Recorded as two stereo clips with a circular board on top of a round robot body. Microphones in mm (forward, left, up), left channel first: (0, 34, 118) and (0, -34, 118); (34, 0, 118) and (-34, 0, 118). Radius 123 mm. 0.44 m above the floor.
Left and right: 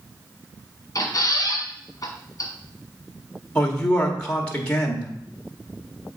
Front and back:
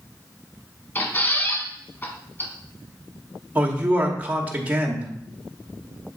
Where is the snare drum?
I don't hear a snare drum.